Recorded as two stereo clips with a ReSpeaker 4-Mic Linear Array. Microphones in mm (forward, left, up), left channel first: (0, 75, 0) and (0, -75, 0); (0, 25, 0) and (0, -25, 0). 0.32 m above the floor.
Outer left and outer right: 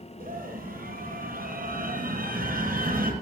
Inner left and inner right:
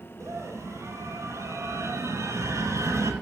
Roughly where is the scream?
Right.